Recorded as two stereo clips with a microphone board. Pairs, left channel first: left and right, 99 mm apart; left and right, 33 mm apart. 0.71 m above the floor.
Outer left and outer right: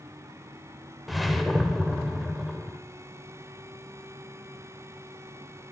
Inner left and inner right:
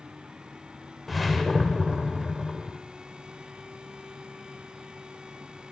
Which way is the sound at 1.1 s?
Centre (ahead or behind).